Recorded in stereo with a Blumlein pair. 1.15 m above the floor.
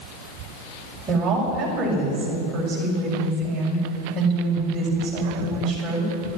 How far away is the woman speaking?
About 6.5 m.